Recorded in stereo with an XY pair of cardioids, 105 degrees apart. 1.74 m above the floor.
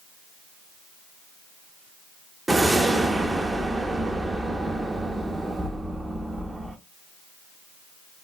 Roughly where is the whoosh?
Ahead.